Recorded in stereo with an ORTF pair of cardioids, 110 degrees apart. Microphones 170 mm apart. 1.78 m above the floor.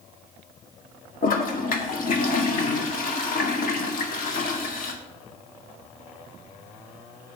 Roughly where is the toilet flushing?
Ahead left.